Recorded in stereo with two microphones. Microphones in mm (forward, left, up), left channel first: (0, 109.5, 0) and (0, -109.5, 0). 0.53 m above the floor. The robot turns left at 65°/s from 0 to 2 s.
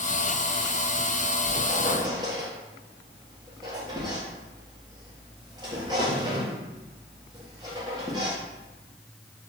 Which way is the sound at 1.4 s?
55° right (ahead or behind).